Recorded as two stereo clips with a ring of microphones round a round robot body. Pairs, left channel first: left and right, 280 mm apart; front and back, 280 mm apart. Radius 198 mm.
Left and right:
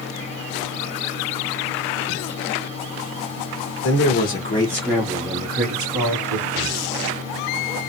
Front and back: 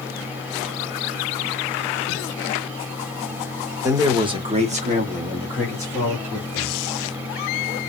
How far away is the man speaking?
About 1.2 m.